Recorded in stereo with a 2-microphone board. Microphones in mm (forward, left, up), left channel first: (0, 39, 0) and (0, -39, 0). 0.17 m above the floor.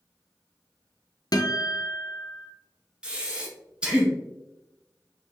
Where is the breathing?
10° right (ahead or behind), 1.2 m.